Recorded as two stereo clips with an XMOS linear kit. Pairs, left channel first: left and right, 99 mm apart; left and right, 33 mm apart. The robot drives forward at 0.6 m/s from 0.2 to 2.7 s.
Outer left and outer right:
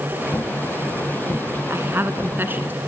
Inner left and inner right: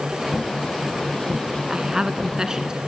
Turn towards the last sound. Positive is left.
turn(degrees=-20)  # may be behind; listen again after turning